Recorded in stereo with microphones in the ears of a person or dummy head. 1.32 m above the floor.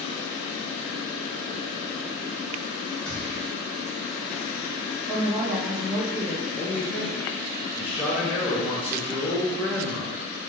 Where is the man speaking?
5° left (ahead or behind), 1.0 m.